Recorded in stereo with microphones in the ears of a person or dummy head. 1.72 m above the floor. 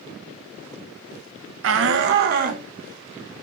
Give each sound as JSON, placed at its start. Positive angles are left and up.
{"t": 1.6, "sound": "a shout", "side_deg": -65, "distance_m": 1.4}